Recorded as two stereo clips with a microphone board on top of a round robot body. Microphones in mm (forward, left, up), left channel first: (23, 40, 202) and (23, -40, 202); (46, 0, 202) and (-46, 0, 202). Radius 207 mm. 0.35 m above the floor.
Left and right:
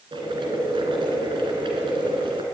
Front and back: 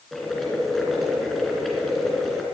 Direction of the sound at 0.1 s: 85° right.